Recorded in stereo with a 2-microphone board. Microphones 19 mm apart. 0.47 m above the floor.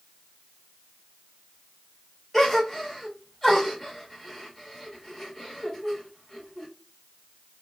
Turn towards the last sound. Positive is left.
turn(degrees=5)  # may be behind; listen again after turning